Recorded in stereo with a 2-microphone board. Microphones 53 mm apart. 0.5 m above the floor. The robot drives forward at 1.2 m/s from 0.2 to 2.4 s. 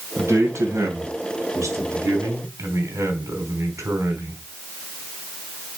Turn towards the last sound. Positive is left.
turn(degrees=-70)  # may be behind; listen again after turning